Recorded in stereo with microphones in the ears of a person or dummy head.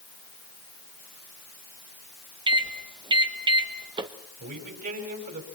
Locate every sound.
2.5 s a microwave: 20° right (ahead or behind), 1.3 m
4.4 s a man speaking: 50° right (ahead or behind), 5 m